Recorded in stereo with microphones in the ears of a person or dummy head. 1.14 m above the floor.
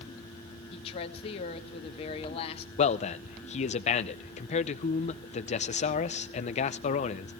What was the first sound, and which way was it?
A woman speaking, 35° left (ahead or behind).